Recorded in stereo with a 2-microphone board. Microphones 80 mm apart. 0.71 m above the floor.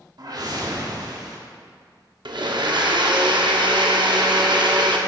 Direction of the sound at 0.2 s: 55° right (ahead or behind).